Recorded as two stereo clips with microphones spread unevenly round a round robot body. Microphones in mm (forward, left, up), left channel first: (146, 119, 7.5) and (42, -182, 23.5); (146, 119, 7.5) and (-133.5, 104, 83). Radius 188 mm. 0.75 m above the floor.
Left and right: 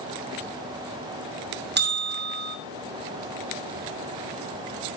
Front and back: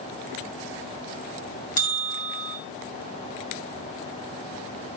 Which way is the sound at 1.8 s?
50° right.